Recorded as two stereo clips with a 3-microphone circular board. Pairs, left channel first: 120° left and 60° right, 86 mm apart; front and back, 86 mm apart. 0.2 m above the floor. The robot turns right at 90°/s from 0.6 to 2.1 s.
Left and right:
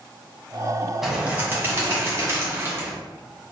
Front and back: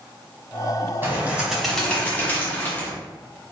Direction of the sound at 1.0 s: 145° right.